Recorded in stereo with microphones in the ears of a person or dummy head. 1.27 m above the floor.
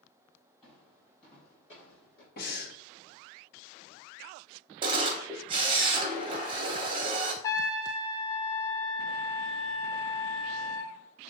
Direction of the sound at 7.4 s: 20° left (ahead or behind).